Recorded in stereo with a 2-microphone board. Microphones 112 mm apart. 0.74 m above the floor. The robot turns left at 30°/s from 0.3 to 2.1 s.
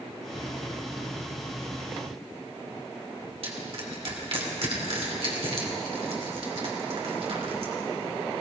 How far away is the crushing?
About 2.5 m.